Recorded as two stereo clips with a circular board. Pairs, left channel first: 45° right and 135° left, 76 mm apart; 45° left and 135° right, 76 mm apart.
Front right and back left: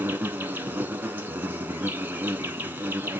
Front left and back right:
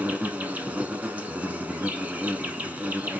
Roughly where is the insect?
Behind.